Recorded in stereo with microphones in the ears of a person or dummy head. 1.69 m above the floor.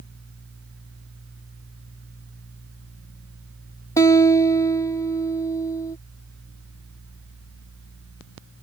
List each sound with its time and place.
4.0 s a guitar: 25° left (ahead or behind)